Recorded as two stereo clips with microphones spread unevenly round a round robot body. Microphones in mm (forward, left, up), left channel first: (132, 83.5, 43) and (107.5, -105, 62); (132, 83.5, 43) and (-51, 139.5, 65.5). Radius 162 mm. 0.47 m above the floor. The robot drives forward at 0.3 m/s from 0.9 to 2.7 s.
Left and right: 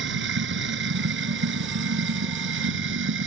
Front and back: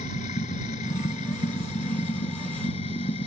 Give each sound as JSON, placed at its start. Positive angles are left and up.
{"t": 0.0, "sound": "running water", "azimuth_deg": -80}